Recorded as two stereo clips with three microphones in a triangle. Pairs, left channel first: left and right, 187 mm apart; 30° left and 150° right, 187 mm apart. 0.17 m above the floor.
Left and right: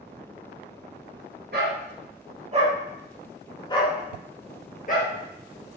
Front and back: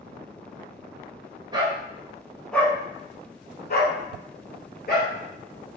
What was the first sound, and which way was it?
A dog barking, 85° right.